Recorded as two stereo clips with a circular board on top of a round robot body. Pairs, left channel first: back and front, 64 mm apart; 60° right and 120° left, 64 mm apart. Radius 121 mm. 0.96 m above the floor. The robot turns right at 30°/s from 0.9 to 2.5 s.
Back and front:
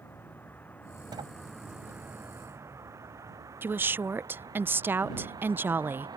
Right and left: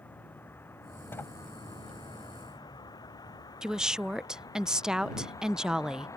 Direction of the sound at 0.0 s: 120° right.